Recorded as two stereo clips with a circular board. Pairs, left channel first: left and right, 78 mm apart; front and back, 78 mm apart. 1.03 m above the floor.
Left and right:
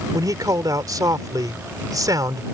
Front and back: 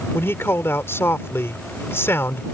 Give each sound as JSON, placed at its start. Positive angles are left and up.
{"t": 0.1, "sound": "a man speaking", "azimuth_deg": -55}